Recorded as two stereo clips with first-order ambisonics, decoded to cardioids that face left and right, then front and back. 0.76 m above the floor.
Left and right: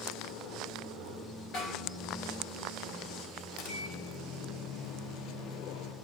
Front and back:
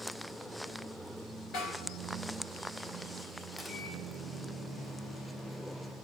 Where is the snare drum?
45° left, 3.5 m.